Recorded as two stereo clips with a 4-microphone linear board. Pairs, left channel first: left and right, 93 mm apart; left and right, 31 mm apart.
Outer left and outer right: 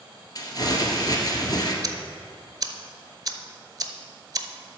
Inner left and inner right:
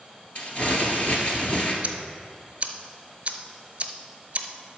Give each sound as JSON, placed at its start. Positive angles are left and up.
{"t": 0.3, "sound": "crumpling", "side_deg": 45, "distance_m": 1.6}
{"t": 1.8, "sound": "ticking", "side_deg": -45, "distance_m": 0.8}